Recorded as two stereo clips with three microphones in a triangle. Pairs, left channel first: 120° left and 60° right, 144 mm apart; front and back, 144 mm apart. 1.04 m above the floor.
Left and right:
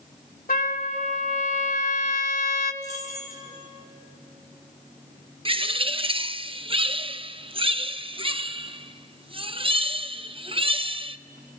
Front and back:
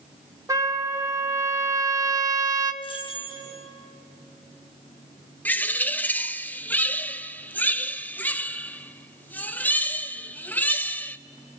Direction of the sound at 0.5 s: 115° left.